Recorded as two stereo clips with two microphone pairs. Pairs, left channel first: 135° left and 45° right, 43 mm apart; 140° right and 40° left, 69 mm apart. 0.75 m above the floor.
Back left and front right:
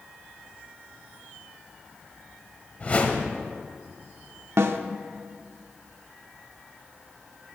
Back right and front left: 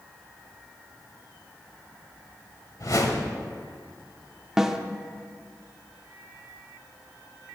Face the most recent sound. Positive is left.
turn(degrees=-40)